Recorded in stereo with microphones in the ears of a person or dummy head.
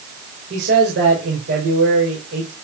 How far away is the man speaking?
About 6 m.